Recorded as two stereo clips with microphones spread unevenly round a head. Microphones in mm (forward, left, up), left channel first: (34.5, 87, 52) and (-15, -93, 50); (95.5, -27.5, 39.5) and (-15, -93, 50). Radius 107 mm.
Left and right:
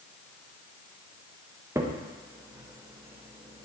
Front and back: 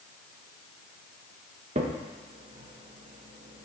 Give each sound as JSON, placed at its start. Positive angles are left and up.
{"t": 1.8, "sound": "a crack", "azimuth_deg": 180, "distance_m": 0.9}